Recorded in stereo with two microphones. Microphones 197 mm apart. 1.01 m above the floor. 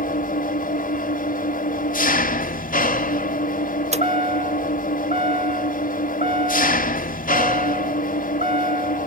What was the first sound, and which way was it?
An engine running, 45° left (ahead or behind).